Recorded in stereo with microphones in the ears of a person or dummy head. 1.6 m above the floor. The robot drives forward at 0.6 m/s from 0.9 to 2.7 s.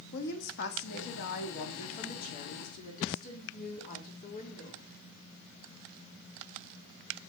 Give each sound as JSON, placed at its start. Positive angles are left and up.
{"t": 0.1, "sound": "a woman speaking", "side_deg": 60, "distance_m": 2.5}